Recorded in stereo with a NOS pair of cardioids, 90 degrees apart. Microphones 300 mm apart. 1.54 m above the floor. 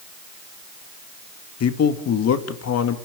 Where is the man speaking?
55° left, 2 m.